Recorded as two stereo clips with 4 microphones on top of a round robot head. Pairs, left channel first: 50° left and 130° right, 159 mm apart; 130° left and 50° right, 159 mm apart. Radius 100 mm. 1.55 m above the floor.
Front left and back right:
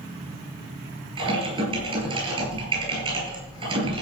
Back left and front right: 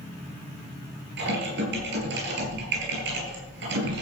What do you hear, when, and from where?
1.2 s typing on a keyboard: 70° right, 6 m